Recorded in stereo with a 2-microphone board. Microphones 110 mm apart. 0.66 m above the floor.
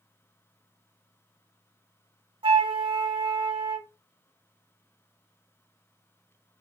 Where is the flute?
55° right (ahead or behind), 0.8 m.